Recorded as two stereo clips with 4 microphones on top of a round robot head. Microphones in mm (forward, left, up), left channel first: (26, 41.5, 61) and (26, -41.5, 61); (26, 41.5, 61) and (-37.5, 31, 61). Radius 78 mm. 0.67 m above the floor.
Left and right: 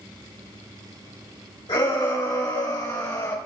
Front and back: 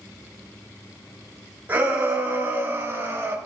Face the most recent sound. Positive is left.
turn(degrees=140)